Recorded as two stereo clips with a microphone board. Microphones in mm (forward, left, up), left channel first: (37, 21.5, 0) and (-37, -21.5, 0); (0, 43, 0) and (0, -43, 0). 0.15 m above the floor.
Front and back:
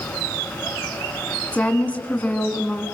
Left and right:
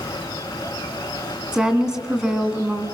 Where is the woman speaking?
20° right, 1.7 m.